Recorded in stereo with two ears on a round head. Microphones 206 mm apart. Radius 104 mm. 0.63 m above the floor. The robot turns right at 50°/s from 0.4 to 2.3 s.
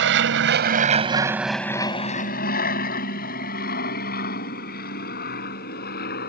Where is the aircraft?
50° right (ahead or behind); by 6.3 s 40° left (ahead or behind).